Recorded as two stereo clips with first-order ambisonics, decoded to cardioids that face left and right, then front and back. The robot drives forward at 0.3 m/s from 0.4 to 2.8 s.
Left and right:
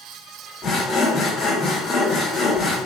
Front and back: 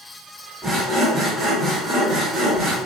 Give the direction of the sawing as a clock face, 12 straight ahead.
8 o'clock.